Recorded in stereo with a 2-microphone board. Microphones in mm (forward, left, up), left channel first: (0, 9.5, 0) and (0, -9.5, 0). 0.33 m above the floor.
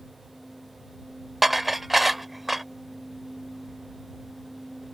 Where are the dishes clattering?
10° right (ahead or behind).